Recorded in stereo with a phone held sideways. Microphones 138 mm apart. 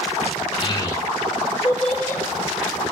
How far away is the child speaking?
About 0.8 m.